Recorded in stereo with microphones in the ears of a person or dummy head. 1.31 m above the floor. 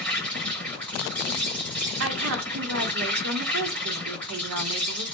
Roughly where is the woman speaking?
Right.